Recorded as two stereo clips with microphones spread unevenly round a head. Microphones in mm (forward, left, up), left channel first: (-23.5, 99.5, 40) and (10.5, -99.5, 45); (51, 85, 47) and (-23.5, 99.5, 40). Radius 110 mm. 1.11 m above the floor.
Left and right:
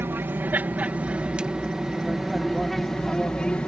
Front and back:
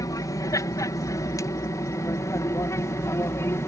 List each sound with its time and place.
0.0 s an aircraft: 5° right; by 3.7 s 20° left